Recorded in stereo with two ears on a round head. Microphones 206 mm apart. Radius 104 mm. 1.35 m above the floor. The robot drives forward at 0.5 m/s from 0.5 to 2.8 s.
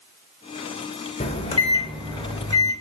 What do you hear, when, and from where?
1.2 s a microwave: 25° left (ahead or behind), 0.8 m; by 2.7 s 15° left (ahead or behind), 1.5 m